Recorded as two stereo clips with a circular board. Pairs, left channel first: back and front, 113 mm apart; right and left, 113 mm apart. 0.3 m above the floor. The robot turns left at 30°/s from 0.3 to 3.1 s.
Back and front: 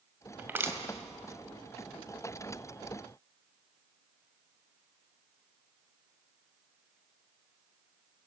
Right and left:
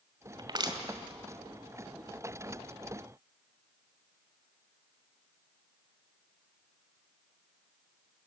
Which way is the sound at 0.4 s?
65° left.